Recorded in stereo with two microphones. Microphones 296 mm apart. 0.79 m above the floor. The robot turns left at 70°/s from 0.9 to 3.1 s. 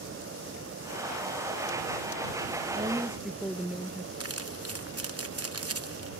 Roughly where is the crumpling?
Right.